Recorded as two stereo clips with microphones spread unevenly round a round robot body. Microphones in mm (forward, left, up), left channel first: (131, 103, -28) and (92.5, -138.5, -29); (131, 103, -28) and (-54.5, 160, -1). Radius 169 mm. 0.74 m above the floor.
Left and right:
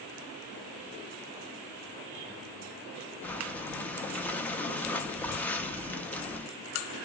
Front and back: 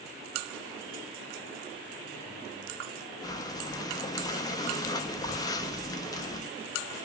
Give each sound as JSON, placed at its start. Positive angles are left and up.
{"t": 3.2, "sound": "breathing", "azimuth_deg": 5, "distance_m": 0.6}